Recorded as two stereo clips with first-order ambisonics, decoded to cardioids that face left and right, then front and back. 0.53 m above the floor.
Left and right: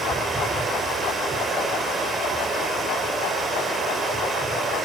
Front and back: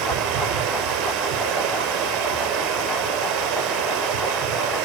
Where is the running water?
165° right, 4 m.